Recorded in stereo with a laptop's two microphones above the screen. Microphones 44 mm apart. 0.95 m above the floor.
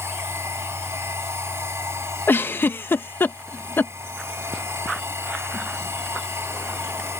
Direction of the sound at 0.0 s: 85° right.